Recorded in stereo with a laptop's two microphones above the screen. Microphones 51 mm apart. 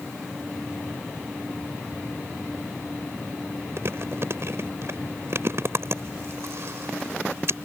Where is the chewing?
60° right (ahead or behind).